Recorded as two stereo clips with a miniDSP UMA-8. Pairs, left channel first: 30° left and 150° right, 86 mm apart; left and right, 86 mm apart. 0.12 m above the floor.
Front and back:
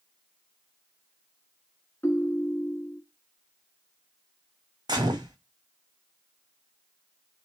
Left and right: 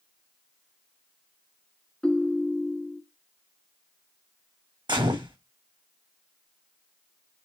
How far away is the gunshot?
About 1.6 m.